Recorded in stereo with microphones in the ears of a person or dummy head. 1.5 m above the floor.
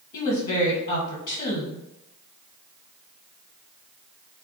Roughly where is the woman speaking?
Left.